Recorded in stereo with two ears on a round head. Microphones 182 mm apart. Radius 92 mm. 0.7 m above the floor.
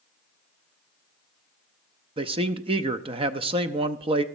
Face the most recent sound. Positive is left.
turn(degrees=-25)  # may be behind; listen again after turning